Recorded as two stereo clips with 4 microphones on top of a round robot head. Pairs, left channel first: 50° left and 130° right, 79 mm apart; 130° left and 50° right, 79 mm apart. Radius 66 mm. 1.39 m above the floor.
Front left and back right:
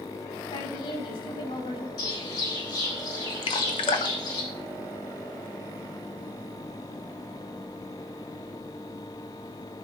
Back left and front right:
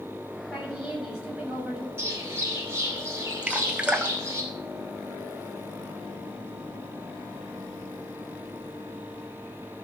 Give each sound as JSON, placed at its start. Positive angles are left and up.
{"t": 0.5, "sound": "a woman speaking", "azimuth_deg": 30, "distance_m": 7.0}
{"t": 2.0, "sound": "a bird", "azimuth_deg": 10, "distance_m": 6.0}
{"t": 3.4, "sound": "dripping", "azimuth_deg": 30, "distance_m": 1.1}